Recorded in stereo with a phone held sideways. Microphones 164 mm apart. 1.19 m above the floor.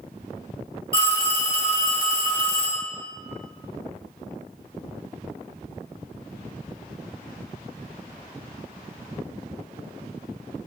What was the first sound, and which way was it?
A phone ringing, 70° left (ahead or behind).